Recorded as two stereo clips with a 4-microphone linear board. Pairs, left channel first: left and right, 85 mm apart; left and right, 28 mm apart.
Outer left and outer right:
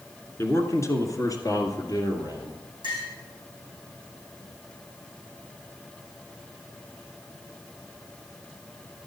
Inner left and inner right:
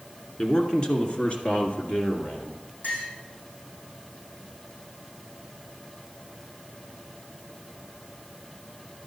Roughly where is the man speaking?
Left.